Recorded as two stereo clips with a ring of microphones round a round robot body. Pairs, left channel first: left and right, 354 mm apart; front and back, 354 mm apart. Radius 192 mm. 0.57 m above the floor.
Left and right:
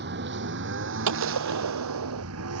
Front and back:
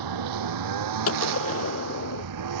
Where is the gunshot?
50° right.